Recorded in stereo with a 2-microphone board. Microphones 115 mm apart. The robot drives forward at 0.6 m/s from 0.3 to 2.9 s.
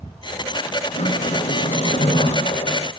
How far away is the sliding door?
About 3 m.